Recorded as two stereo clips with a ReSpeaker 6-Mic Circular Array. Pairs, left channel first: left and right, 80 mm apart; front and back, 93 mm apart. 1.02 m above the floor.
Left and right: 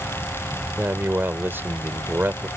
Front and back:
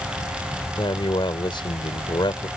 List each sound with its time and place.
0.8 s a man speaking: 30° right